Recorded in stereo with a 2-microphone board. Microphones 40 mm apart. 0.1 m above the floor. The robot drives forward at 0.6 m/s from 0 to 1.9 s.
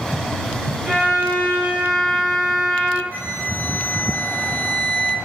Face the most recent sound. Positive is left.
turn(degrees=60)  # may be behind; listen again after turning